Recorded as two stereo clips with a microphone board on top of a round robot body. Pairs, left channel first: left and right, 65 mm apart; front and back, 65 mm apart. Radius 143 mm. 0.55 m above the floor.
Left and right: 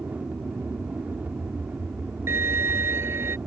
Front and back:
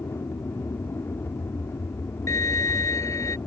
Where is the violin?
40° right.